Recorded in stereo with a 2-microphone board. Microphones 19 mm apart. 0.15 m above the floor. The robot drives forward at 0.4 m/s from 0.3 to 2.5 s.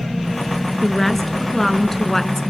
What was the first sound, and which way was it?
A woman speaking, 10° left (ahead or behind).